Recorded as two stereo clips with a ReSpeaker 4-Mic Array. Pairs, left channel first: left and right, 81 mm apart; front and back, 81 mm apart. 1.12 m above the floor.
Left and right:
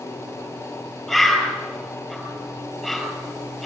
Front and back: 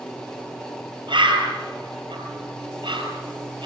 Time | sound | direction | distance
1.1 | a bird | 175° left | 5 m